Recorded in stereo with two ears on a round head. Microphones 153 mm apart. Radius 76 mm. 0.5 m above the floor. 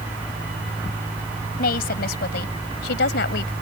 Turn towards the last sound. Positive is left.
turn(degrees=70)  # may be behind; listen again after turning